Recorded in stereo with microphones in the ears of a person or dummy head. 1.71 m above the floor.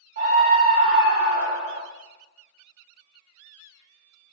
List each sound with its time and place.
0.2 s a scream: 50° right (ahead or behind), 0.7 m